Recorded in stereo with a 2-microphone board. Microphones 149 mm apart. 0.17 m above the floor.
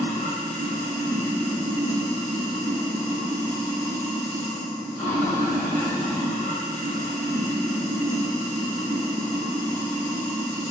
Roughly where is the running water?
Right.